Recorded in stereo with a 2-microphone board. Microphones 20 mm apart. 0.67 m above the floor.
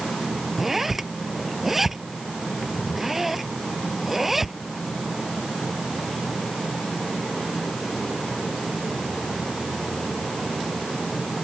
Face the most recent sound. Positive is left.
turn(degrees=-15)  # may be behind; listen again after turning